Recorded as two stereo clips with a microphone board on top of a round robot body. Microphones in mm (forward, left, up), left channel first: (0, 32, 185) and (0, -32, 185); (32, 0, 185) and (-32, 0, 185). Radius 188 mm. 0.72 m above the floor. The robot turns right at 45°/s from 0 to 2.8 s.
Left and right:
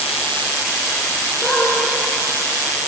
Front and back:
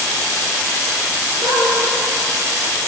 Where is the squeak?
155° left, 8 m; by 1.8 s 170° left, 8 m.